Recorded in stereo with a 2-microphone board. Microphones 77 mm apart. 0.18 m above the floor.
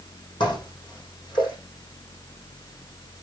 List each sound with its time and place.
0.4 s dishes clattering: 80° left, 5.5 m